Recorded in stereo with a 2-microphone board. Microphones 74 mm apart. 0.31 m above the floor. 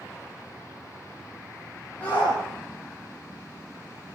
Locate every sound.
2.0 s a shout: 20° left (ahead or behind), 9 m